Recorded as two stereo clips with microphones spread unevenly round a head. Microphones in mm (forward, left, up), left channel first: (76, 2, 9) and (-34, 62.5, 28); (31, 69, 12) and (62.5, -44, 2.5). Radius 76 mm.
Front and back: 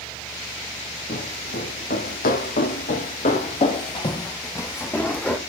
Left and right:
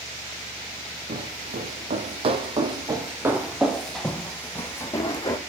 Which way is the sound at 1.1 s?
65° right.